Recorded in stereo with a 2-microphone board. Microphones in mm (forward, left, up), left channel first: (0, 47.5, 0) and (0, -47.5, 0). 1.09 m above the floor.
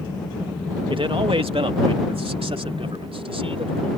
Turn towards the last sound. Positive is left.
turn(degrees=-80)